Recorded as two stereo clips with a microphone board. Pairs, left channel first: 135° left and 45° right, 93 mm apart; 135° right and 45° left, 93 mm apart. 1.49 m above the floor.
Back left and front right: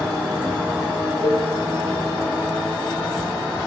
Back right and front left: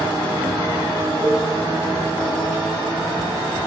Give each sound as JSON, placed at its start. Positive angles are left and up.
{"t": 1.2, "sound": "a cowbell", "azimuth_deg": 155, "distance_m": 6.5}